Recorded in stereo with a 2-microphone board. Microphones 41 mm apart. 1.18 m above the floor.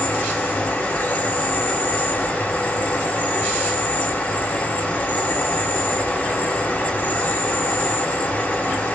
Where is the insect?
35° left (ahead or behind), 1.9 m.